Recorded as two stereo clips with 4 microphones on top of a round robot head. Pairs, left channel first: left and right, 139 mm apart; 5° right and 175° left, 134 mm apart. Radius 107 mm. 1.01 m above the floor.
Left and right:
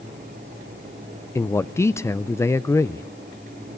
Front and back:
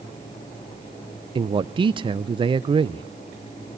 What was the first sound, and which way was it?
A man speaking, 150° left.